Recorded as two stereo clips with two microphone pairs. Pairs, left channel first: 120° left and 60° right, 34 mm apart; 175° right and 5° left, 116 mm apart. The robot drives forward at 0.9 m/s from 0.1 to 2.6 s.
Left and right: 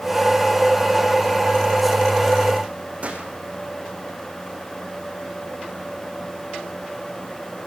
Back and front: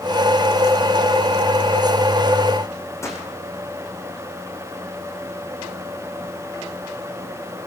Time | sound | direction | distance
3.0 | a gunshot | 105° right | 6 m